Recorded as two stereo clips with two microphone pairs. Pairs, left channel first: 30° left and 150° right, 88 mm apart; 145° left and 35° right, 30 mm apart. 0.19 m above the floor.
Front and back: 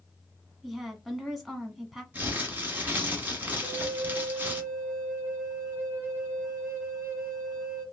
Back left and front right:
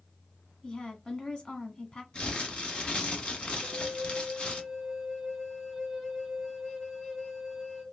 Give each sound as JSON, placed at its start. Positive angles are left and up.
{"t": 0.6, "sound": "a woman speaking", "azimuth_deg": 120, "distance_m": 1.2}
{"t": 2.1, "sound": "crumpling", "azimuth_deg": 155, "distance_m": 1.2}
{"t": 3.6, "sound": "a flute", "azimuth_deg": -155, "distance_m": 1.1}